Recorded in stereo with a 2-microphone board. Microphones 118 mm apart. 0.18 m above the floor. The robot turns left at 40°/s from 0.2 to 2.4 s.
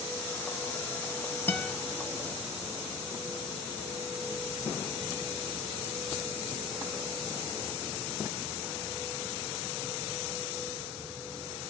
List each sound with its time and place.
1.5 s a guitar: 15° left (ahead or behind), 1.3 m